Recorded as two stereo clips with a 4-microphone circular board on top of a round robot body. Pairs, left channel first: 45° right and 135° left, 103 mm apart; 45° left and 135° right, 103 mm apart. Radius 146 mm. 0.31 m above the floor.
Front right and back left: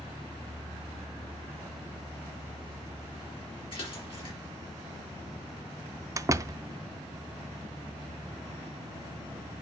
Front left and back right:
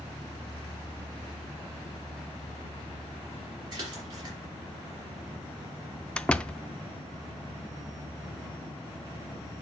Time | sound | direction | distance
3.7 | a splash | 80° right | 4 m
6.2 | a door slam | 115° left | 0.6 m